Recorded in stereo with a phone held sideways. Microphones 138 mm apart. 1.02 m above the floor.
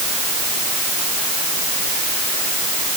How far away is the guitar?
I don't hear a guitar.